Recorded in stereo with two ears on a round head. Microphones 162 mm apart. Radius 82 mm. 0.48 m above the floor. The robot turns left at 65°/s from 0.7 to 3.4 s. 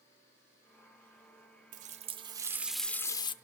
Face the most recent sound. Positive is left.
turn(degrees=140)